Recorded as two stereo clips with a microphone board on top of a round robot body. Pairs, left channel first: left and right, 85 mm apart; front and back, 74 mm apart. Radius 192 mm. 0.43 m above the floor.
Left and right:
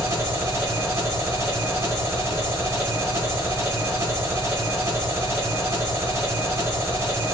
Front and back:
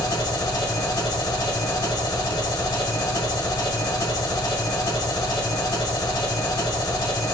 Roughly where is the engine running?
Ahead right.